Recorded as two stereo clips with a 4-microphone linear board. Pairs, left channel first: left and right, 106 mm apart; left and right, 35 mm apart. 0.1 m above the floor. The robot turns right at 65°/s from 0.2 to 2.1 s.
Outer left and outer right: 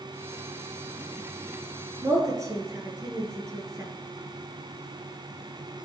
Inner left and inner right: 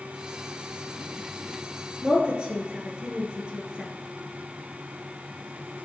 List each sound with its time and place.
2.0 s a woman speaking: 30° right (ahead or behind), 1.4 m